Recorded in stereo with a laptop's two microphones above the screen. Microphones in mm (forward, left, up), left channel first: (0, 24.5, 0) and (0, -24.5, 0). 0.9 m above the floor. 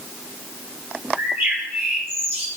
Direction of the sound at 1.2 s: 50° right (ahead or behind).